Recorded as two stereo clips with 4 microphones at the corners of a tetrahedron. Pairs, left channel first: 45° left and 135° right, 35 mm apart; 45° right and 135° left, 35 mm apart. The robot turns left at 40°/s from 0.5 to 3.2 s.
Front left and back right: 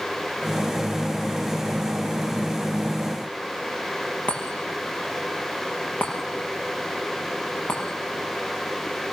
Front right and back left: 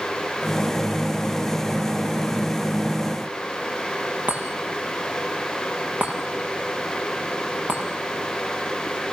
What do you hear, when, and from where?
4.3 s a chime: 90° left, 6 m